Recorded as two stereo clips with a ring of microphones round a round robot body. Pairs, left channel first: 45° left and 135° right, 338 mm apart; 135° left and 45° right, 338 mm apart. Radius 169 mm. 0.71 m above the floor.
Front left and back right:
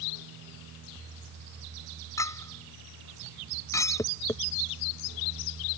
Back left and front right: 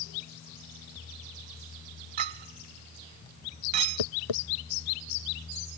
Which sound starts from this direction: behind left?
Tapping, at 4.0 s.